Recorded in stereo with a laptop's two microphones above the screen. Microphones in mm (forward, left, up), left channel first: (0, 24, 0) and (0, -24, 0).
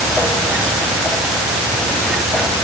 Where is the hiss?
I don't hear a hiss.